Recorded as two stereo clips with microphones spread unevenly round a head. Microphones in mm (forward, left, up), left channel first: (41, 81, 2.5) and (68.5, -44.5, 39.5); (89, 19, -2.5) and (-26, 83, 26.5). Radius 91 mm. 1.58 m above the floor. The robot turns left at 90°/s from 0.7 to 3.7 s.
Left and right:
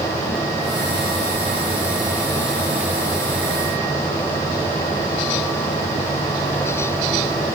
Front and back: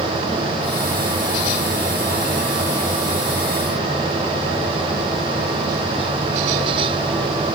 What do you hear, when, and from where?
Only background noise.